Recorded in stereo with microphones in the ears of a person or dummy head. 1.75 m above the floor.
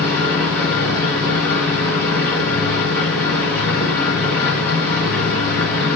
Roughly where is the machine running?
Centre.